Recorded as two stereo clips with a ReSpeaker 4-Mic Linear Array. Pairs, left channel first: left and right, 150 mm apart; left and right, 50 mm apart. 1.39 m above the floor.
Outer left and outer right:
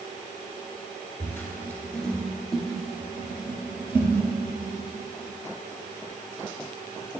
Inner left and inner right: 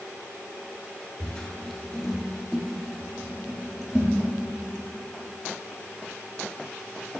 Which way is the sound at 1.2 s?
20° left (ahead or behind).